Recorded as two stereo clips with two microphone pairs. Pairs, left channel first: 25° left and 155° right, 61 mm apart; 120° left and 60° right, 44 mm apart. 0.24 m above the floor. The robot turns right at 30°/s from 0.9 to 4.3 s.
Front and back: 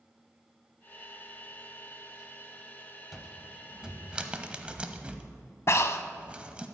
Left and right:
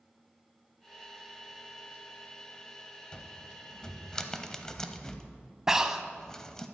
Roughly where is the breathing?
Ahead.